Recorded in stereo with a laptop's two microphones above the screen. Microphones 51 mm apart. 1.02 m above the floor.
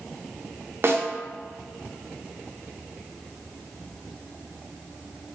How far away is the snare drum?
About 0.9 m.